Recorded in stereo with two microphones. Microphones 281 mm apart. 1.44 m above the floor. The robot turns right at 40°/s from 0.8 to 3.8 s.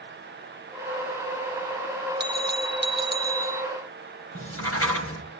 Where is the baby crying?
I don't hear a baby crying.